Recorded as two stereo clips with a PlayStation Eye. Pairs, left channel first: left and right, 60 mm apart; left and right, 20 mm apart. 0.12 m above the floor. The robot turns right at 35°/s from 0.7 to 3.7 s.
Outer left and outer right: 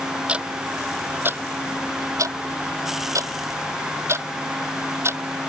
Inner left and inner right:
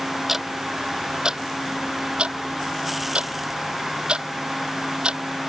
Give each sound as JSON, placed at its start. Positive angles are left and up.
{"t": 0.3, "sound": "ticking", "side_deg": -20}